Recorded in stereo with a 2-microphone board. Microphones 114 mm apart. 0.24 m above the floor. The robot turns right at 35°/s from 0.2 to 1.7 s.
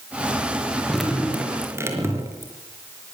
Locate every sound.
0.9 s dripping: 5° left (ahead or behind), 4.5 m; by 2.5 s 25° right (ahead or behind), 4.5 m